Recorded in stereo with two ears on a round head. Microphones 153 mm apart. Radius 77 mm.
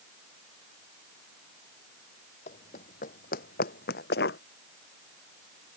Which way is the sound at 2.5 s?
40° left (ahead or behind).